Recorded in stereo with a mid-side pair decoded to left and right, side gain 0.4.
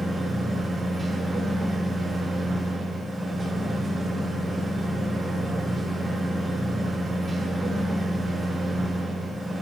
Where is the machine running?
25° right, 2 m.